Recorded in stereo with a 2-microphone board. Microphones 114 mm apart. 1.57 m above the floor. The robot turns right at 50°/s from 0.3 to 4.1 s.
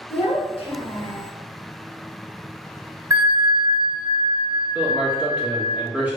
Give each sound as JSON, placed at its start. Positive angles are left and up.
{"t": 0.1, "sound": "a child speaking", "azimuth_deg": 95, "distance_m": 1.1}
{"t": 3.1, "sound": "a bell", "azimuth_deg": -135, "distance_m": 1.1}
{"t": 4.8, "sound": "a man speaking", "side_deg": -15, "distance_m": 1.8}